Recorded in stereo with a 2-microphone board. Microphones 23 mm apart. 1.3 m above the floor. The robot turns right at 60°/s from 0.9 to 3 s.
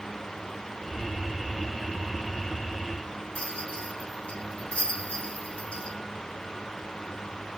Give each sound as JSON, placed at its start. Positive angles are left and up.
{"t": 3.4, "sound": "a rattle", "side_deg": 90, "distance_m": 6.0}